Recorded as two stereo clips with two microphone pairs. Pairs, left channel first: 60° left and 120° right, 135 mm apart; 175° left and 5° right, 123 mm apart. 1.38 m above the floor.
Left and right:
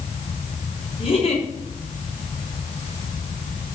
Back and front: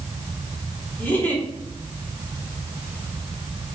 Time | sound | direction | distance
1.0 | a giggle | 100° left | 4.5 m